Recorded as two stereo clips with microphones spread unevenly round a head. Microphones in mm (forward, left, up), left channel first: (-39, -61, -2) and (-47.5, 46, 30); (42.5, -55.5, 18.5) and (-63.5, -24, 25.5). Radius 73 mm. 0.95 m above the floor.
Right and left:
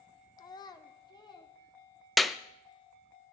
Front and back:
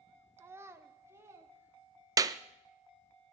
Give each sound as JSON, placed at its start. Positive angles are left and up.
{"t": 0.4, "sound": "a child speaking", "azimuth_deg": -130, "distance_m": 0.7}
{"t": 2.2, "sound": "a clap", "azimuth_deg": -155, "distance_m": 0.6}